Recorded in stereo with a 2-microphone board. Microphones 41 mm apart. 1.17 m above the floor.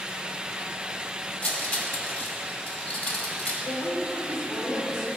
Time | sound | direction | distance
1.4 | cutlery clinking | 45° left (ahead or behind) | 2 m
3.6 | a woman speaking | 85° left | 4.5 m